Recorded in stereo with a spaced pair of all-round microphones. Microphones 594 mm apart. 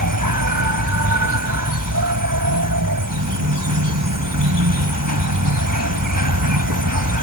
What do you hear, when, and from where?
0.0 s an insect: 30° right (ahead or behind)